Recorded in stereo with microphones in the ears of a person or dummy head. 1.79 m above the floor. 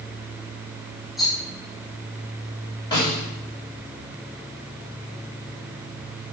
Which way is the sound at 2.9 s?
25° left (ahead or behind).